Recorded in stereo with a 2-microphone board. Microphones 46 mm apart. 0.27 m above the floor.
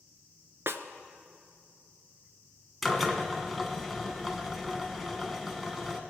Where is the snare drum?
65° right (ahead or behind), 0.6 m.